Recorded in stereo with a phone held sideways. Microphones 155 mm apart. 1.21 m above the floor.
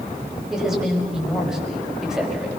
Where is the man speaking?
5° right (ahead or behind), 5.5 m.